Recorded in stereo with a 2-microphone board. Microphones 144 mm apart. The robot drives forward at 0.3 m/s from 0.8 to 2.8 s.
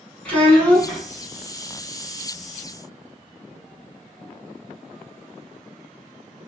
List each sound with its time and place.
0.2 s a child speaking: 10° left (ahead or behind), 0.6 m